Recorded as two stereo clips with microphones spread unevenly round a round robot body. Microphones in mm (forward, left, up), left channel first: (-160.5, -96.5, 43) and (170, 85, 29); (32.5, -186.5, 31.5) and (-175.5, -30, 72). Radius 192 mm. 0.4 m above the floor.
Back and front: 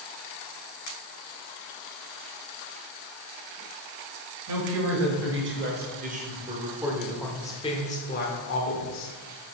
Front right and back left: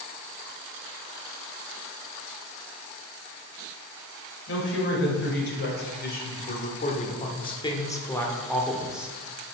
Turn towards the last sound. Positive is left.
turn(degrees=-125)